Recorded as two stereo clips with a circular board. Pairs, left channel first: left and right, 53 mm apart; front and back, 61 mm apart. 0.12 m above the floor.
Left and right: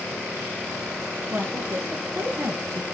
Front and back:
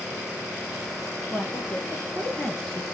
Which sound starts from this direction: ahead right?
A woman speaking, at 1.3 s.